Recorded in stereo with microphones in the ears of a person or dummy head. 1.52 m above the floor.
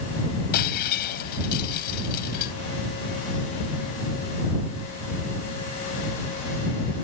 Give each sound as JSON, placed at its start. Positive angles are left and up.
{"t": 0.5, "sound": "breaking glass", "side_deg": 50}